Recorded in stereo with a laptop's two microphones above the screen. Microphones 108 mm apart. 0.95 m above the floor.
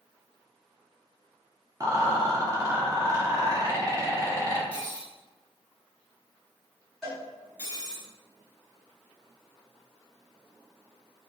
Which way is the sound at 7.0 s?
5° left (ahead or behind).